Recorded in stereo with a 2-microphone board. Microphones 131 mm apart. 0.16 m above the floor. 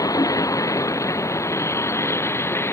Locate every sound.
0.0 s a vehicle: 25° left (ahead or behind); by 2.7 s 15° left (ahead or behind)